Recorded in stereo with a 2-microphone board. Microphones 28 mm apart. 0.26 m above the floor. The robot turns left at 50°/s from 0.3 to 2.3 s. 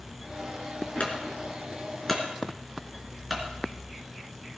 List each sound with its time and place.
1.0 s a clunk: 50° left (ahead or behind), 3.5 m; by 4.6 s 10° right (ahead or behind), 3.5 m